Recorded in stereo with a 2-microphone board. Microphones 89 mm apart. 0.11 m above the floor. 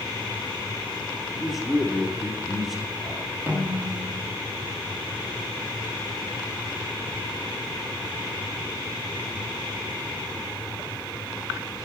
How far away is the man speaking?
About 2 m.